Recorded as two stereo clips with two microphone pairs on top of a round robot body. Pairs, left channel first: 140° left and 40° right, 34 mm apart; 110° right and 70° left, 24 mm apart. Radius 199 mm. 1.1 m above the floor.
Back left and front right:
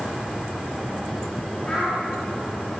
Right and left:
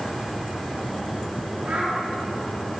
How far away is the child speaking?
About 9 m.